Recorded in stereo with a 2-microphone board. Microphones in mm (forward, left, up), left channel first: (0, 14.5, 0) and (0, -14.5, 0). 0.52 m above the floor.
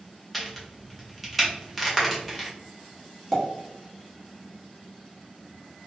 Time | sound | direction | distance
0.3 | a crack | centre (ahead or behind) | 0.8 m
3.3 | a pop | 5° left (ahead or behind) | 0.9 m